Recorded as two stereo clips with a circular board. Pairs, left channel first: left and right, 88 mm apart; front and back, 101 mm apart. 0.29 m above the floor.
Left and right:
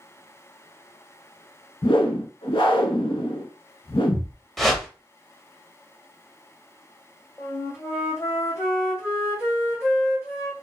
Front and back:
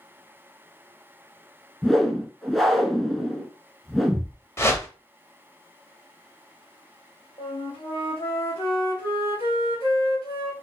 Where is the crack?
No crack in this recording.